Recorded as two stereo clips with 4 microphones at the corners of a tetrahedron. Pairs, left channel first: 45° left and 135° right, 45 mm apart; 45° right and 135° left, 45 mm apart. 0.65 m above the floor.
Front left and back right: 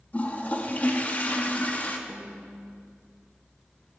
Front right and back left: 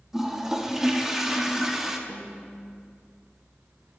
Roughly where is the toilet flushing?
Ahead left.